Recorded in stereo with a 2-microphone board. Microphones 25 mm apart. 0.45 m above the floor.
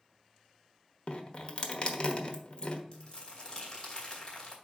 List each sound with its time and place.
1.1 s dripping: 50° left (ahead or behind), 1.1 m
2.9 s crumpling: 35° left (ahead or behind), 2.5 m